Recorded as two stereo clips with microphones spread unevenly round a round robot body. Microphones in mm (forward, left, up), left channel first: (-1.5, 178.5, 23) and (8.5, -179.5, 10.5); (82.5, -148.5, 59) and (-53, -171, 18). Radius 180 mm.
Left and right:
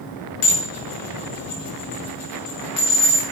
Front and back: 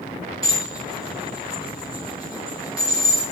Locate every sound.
0.4 s dishes clattering: 105° left, 7.5 m